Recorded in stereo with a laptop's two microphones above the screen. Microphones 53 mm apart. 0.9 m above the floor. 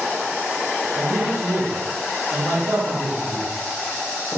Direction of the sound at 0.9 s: 75° right (ahead or behind).